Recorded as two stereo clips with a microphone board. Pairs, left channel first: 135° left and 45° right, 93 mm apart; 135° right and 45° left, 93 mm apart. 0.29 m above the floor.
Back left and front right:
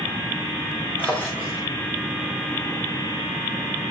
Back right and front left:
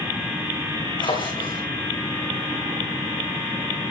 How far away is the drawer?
About 9.5 m.